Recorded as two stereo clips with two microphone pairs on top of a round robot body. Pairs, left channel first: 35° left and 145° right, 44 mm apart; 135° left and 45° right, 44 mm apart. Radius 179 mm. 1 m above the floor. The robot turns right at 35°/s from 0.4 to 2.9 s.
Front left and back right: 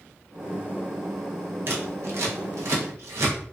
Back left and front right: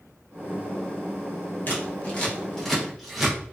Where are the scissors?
175° right, 0.7 m; by 3.4 s 130° right, 0.7 m.